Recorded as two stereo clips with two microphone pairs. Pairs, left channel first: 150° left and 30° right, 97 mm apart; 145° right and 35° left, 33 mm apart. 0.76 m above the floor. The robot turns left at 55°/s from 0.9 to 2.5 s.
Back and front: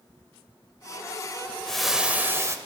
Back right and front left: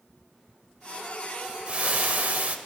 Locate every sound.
1.7 s frying: 70° left, 0.6 m; by 2.6 s 25° left, 0.6 m